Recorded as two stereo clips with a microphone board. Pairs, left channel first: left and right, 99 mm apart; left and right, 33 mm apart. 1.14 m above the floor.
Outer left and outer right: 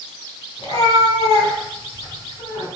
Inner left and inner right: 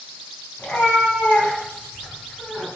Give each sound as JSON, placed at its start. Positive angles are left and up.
{"t": 0.6, "sound": "a cat meowing", "side_deg": 75, "distance_m": 3.5}